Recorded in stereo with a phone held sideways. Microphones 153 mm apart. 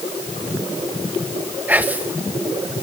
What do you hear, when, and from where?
1.7 s whispering: 10° right (ahead or behind), 1.0 m